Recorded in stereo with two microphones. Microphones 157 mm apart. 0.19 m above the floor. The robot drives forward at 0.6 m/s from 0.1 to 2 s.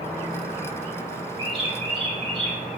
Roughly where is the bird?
Right.